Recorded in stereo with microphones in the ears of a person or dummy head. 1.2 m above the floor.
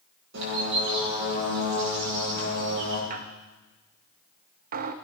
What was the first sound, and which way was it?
A bird, 65° right (ahead or behind).